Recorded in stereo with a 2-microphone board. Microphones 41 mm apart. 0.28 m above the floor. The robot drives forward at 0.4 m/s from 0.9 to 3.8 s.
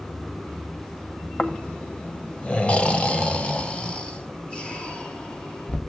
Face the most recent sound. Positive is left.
turn(degrees=25)  # may be behind; listen again after turning